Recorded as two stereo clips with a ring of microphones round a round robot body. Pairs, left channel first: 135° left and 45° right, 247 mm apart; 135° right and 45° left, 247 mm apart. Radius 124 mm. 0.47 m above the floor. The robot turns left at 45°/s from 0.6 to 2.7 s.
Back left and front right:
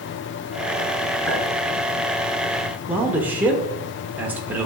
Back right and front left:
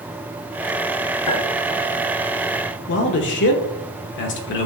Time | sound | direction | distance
1.3 | a clink | 140° right | 3.5 m
2.9 | a man speaking | 125° right | 0.9 m